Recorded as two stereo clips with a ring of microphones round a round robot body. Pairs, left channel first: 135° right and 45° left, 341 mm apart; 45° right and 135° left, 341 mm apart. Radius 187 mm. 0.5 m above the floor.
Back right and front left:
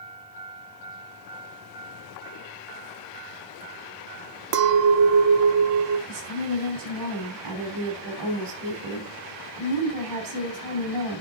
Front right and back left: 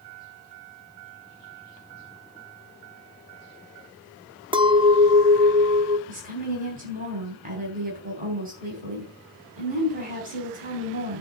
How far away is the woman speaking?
About 3.5 m.